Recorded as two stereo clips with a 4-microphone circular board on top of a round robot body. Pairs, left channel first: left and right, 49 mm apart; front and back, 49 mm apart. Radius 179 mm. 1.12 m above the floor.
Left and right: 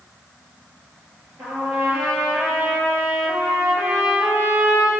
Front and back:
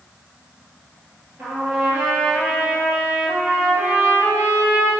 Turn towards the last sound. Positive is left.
turn(degrees=-120)